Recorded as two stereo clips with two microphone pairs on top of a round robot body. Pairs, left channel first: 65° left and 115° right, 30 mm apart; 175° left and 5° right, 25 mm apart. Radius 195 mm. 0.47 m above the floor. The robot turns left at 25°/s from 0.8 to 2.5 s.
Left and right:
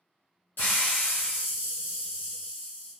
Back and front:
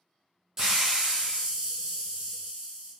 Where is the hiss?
65° left, 0.6 m; by 2.9 s 25° left, 0.6 m.